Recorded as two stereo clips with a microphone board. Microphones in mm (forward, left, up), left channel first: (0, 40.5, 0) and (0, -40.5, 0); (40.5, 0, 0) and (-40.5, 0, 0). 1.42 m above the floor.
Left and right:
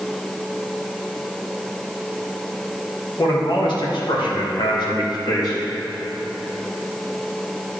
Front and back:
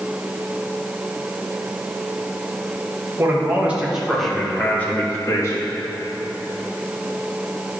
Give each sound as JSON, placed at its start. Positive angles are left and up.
{"t": 3.2, "sound": "a man speaking", "azimuth_deg": 120, "distance_m": 1.8}